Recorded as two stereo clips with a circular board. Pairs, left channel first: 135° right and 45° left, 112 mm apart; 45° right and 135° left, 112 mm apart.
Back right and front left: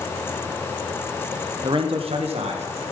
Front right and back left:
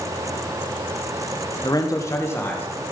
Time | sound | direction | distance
1.6 | a man speaking | 5° left | 1.2 m